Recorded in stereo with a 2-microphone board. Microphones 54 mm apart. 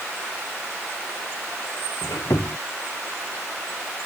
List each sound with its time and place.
2.0 s a squeak: 90° left